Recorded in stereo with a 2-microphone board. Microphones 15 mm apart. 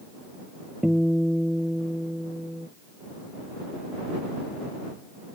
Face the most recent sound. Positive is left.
turn(degrees=-40)  # may be behind; listen again after turning